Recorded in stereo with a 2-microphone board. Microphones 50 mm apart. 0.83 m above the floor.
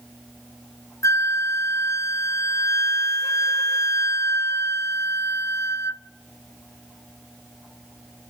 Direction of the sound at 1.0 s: 70° left (ahead or behind).